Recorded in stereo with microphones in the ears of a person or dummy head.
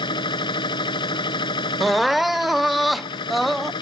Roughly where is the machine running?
Left.